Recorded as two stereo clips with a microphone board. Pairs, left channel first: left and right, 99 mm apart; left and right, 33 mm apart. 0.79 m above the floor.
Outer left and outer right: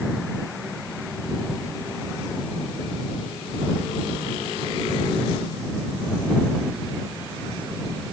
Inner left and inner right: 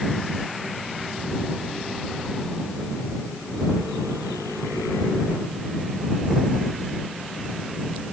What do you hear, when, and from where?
Only background noise.